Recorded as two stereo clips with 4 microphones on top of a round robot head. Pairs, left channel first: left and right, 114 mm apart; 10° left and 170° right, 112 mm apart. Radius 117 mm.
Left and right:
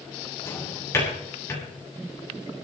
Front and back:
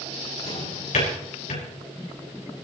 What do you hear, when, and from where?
0.5 s a drawer: 25° left, 8.5 m